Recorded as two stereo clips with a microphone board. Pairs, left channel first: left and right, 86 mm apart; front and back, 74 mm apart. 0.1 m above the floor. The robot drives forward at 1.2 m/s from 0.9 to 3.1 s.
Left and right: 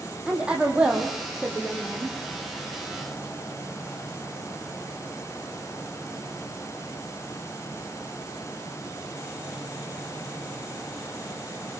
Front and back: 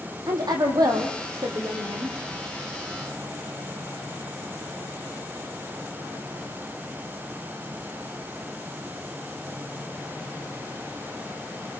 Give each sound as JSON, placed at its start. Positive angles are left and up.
{"t": 0.3, "sound": "a woman speaking", "azimuth_deg": -165, "distance_m": 5.5}